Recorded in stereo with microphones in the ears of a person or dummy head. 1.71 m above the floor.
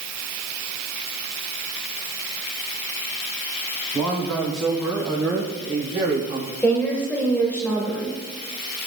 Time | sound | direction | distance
3.9 | a man speaking | 10° left (ahead or behind) | 4.5 m
6.6 | a woman speaking | 5° left (ahead or behind) | 2.0 m